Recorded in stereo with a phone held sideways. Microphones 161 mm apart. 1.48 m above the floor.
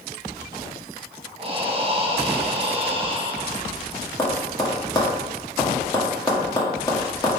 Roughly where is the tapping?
Left.